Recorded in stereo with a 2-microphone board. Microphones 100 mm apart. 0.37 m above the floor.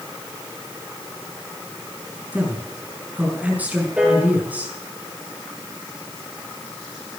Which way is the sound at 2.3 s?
15° right (ahead or behind).